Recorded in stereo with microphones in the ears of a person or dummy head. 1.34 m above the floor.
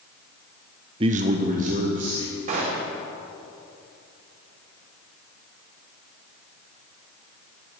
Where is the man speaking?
30° right (ahead or behind), 0.5 m; by 2.4 s 40° right (ahead or behind), 1.4 m.